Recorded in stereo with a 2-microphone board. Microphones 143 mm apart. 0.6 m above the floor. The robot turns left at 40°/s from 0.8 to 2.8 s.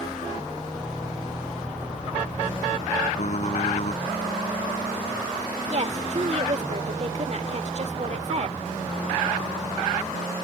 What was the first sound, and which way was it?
Typing on a keyboard, 60° left (ahead or behind).